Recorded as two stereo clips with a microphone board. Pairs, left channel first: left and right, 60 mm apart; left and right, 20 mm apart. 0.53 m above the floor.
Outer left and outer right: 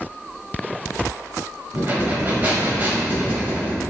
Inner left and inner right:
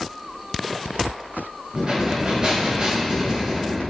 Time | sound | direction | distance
1.7 | breathing | 30° right (ahead or behind) | 1.0 m